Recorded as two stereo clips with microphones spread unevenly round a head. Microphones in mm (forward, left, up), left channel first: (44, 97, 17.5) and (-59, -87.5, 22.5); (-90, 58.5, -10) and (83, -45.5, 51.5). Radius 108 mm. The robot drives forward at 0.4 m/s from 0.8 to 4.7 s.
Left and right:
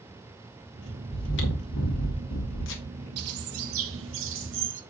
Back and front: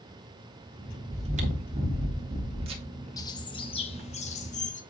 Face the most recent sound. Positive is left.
turn(degrees=-155)